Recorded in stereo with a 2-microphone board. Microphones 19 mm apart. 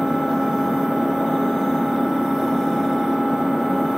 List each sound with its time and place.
0.0 s an engine running: 85° right, 3.5 m